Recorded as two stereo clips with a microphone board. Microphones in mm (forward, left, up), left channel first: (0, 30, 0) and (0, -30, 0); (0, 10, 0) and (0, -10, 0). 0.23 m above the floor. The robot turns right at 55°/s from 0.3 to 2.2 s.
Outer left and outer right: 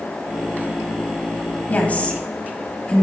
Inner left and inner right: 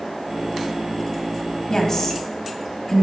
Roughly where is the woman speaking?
Left.